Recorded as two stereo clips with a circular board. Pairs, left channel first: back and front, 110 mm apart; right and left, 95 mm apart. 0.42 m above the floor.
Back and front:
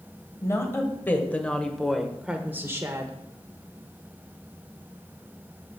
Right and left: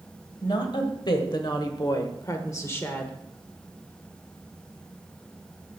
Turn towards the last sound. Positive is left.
turn(degrees=-25)